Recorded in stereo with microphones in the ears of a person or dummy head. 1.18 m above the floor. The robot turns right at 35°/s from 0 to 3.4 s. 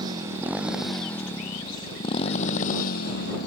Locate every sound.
0.0 s a motorcycle: 30° right (ahead or behind); by 3.5 s 65° left (ahead or behind)